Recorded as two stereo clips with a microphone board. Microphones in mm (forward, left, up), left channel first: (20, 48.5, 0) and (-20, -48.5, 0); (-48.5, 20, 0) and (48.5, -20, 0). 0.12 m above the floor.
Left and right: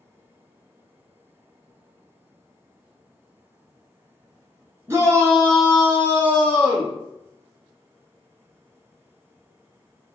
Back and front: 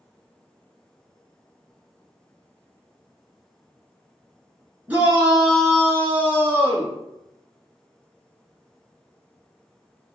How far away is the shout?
About 1.3 m.